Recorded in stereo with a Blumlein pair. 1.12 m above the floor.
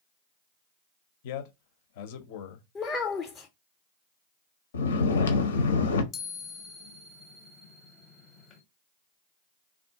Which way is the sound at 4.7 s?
65° left.